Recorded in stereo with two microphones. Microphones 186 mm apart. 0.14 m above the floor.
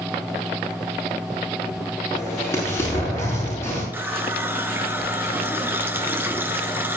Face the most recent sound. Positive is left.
turn(degrees=-10)  # may be behind; listen again after turning